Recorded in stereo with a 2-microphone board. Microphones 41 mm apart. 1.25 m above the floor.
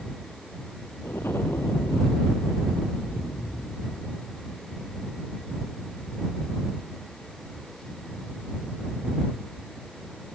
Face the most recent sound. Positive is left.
turn(degrees=85)